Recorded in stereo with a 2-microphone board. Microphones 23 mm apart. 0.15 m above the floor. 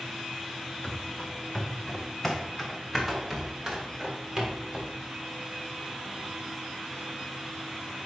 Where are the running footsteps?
40° left (ahead or behind), 1.8 m; by 4.9 s 25° right (ahead or behind), 3 m.